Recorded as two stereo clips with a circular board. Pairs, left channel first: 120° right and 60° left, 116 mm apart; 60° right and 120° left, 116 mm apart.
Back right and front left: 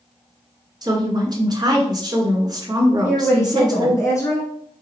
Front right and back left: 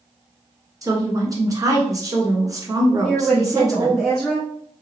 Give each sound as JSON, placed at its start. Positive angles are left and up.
{"t": 0.8, "sound": "a woman speaking", "azimuth_deg": 80, "distance_m": 1.3}
{"t": 3.0, "sound": "a woman speaking", "azimuth_deg": -145, "distance_m": 1.1}